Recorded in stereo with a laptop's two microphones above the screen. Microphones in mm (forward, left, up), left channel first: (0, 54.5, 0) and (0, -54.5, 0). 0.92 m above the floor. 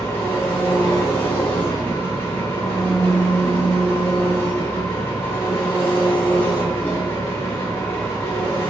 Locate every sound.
0.0 s an engine running: 20° left (ahead or behind), 0.9 m